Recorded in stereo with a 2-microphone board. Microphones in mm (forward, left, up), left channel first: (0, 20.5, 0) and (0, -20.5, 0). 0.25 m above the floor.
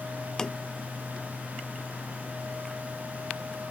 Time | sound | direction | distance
0.4 | tapping | 15° left (ahead or behind) | ?